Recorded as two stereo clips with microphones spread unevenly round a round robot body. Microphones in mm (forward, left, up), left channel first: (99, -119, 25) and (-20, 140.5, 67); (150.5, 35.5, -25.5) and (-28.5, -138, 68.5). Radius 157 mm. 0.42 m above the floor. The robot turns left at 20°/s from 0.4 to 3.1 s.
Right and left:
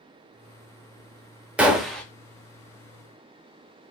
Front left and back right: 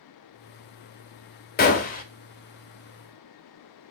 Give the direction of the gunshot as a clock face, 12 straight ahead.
11 o'clock.